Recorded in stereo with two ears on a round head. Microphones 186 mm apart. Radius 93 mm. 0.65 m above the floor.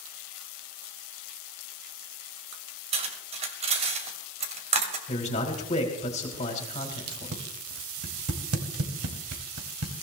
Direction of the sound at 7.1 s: 80° right.